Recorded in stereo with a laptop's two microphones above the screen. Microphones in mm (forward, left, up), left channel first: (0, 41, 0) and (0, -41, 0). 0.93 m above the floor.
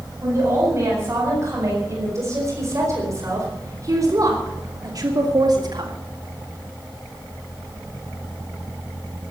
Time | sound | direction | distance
0.2 | a woman speaking | 35° right (ahead or behind) | 7.5 m